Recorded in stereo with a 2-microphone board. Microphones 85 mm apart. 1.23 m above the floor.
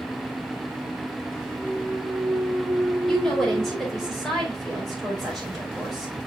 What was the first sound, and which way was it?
A clunk, 25° left (ahead or behind).